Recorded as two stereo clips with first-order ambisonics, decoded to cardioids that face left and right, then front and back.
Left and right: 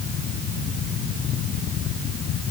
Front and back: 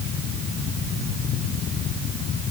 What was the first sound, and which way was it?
Only background noise.